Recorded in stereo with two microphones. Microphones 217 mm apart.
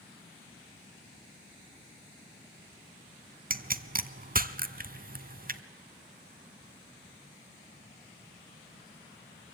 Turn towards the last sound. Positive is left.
turn(degrees=-40)  # may be behind; listen again after turning